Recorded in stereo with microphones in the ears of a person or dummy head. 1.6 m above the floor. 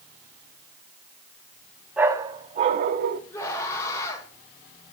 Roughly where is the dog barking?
Centre.